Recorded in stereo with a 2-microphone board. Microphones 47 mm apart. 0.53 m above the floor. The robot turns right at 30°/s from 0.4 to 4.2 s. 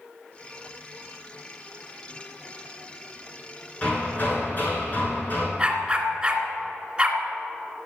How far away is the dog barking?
About 2 m.